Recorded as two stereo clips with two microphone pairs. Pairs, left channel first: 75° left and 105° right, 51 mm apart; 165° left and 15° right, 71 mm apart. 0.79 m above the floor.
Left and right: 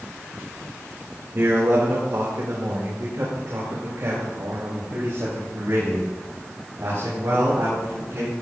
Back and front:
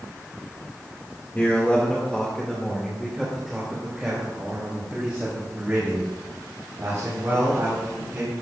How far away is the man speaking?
About 2 m.